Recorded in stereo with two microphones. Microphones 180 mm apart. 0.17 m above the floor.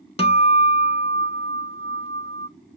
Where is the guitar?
35° left (ahead or behind), 0.6 m.